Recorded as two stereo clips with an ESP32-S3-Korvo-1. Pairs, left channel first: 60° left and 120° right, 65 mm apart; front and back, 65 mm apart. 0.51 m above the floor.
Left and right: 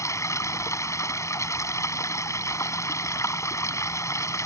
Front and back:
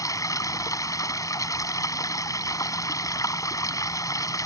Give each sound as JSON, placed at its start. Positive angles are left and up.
{"t": 0.0, "sound": "running water", "azimuth_deg": 25}